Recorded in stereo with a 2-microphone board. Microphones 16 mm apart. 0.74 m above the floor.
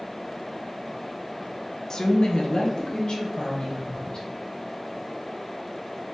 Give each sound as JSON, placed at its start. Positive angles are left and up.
{"t": 1.9, "sound": "a woman speaking", "side_deg": 30, "distance_m": 0.7}